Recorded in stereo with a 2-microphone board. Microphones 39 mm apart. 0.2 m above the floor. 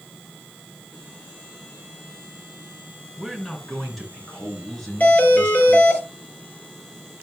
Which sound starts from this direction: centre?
A man speaking, at 3.2 s.